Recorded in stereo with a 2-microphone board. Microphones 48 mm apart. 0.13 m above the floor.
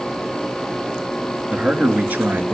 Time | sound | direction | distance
1.5 | a man speaking | 25° right (ahead or behind) | 1.7 m